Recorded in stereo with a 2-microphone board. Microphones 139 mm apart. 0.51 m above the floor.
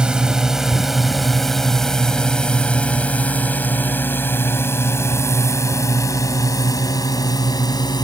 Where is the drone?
5° right (ahead or behind); by 8.1 s 30° left (ahead or behind).